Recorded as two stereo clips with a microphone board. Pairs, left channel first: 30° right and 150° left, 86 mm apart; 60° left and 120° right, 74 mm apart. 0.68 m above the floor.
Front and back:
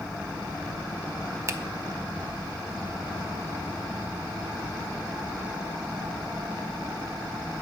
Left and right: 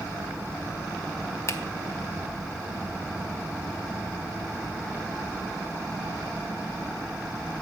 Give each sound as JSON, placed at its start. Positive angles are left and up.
{"t": 1.5, "sound": "a finger snap", "azimuth_deg": 100, "distance_m": 0.6}